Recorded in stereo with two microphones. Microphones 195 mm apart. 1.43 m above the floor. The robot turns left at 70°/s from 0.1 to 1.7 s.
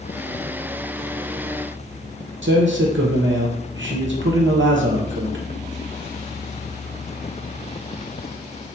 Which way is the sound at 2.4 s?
75° right (ahead or behind).